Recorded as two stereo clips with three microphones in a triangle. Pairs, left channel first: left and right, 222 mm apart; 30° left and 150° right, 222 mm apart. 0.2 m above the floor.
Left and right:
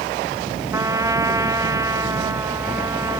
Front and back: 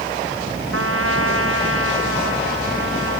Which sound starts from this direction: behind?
A trumpet, at 0.7 s.